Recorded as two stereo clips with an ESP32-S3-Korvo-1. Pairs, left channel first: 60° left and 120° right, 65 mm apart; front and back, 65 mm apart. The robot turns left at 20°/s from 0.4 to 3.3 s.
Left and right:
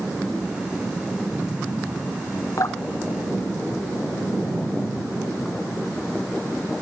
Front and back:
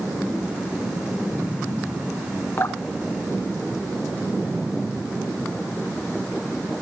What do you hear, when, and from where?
2.6 s dripping: 45° left, 1.2 m; by 4.3 s 30° left, 1.2 m